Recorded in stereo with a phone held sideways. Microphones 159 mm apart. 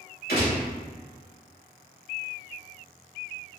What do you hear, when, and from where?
0.3 s a gunshot: 70° left (ahead or behind), 1.7 m